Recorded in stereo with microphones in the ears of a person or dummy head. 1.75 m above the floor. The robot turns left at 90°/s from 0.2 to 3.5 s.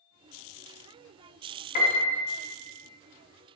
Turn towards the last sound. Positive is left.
turn(degrees=-20)